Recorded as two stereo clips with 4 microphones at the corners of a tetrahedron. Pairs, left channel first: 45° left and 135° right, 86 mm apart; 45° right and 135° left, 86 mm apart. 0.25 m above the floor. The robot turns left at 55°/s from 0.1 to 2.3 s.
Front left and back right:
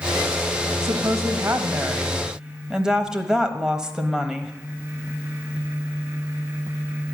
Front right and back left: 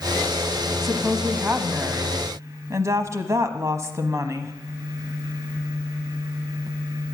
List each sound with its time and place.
0.8 s a woman speaking: 130° right, 1.1 m; by 4.5 s 145° left, 1.1 m